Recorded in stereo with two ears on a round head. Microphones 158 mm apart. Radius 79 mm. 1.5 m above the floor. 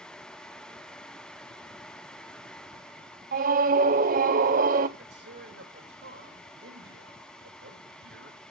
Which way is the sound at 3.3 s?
50° right (ahead or behind).